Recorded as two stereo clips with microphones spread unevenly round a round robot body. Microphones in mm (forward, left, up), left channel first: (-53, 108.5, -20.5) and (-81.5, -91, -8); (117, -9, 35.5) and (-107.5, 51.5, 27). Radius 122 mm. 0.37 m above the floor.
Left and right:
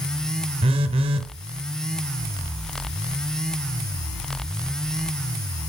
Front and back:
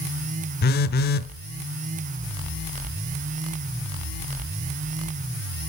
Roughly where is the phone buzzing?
Ahead right.